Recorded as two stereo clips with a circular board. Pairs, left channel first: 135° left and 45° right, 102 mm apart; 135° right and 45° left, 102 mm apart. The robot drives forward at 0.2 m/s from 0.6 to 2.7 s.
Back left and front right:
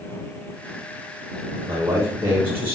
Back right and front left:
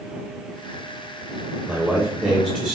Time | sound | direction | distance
1.7 | a man speaking | 40° right | 0.8 m